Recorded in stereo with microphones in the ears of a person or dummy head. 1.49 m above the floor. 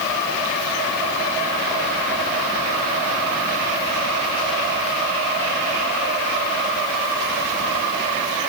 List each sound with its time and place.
Only background noise.